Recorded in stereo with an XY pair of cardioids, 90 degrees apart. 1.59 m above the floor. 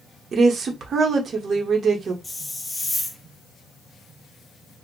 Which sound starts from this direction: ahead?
A hiss, at 2.2 s.